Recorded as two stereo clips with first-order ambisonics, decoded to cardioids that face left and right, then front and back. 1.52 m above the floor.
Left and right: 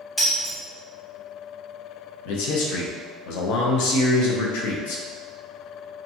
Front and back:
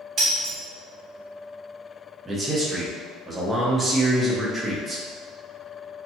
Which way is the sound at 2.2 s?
95° left.